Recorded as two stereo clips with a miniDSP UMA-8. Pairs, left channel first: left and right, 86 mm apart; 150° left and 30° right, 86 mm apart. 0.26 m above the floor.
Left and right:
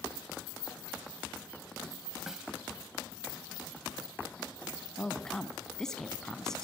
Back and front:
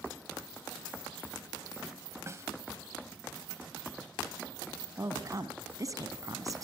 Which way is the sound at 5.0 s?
10° left.